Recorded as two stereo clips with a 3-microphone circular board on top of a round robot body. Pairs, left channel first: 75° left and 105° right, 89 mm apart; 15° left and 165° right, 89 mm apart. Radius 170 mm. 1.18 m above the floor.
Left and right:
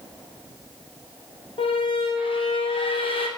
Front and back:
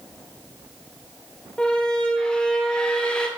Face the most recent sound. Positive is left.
turn(degrees=95)